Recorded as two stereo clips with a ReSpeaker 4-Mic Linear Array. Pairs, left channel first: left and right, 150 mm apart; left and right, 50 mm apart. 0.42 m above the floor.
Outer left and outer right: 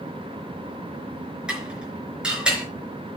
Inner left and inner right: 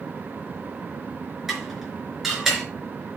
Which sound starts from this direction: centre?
Dishes clattering, at 1.5 s.